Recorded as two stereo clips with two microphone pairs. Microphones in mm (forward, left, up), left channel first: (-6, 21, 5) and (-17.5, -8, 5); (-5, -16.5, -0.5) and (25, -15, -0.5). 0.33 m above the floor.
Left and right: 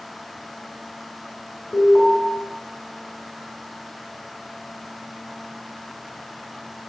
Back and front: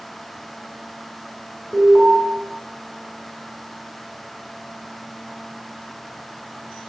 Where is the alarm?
45° left, 7 m.